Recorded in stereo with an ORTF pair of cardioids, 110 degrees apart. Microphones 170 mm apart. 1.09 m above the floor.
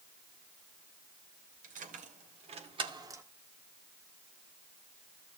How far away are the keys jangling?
About 2.5 m.